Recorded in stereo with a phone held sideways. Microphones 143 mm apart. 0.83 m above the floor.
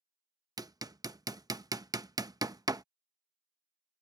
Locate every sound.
0.6 s hammering: 25° right (ahead or behind)